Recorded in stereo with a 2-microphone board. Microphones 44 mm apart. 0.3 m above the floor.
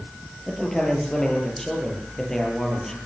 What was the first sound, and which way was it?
A man speaking, 10° left (ahead or behind).